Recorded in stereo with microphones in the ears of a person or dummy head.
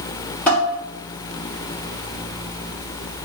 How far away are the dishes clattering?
About 0.8 m.